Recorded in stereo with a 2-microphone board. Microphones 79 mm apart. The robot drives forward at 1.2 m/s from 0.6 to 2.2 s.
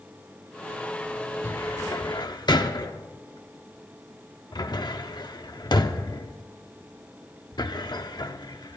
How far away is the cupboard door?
About 1.0 m.